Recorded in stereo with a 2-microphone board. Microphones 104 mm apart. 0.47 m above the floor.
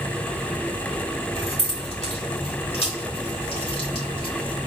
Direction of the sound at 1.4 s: 65° left (ahead or behind).